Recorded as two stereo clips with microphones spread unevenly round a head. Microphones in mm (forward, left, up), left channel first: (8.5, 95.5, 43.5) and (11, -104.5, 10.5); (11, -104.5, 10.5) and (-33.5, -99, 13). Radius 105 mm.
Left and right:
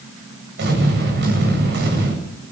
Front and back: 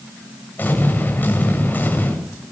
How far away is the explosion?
About 8 m.